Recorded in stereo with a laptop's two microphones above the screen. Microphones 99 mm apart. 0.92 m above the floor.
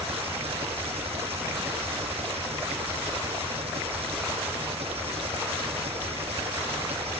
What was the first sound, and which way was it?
An engine running, 80° right.